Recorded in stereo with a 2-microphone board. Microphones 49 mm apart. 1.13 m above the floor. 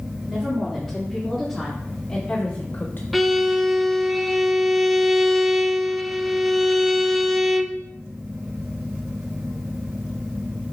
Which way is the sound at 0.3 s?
10° right (ahead or behind).